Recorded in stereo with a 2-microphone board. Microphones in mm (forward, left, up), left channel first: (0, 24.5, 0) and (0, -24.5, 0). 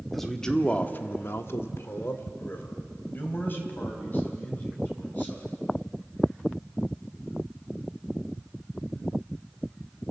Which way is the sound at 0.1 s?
5° left (ahead or behind).